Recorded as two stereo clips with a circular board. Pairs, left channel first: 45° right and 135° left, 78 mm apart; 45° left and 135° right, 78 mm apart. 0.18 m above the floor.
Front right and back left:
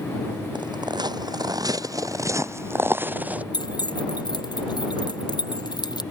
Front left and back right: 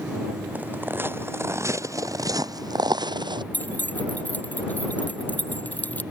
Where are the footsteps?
155° left; by 3.4 s 155° right.